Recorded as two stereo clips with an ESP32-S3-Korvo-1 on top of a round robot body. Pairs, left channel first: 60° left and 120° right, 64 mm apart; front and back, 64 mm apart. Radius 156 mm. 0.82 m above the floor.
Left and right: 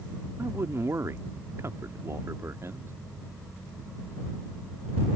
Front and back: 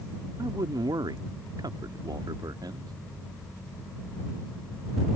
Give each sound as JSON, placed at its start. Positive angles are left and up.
{"t": 0.4, "sound": "a man speaking", "azimuth_deg": -165}